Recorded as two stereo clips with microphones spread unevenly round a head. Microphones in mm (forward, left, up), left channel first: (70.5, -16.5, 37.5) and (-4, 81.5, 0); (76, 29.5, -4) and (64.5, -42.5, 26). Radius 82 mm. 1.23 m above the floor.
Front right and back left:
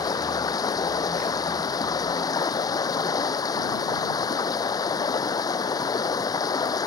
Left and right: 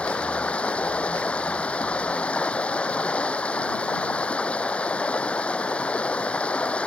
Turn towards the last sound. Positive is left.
turn(degrees=5)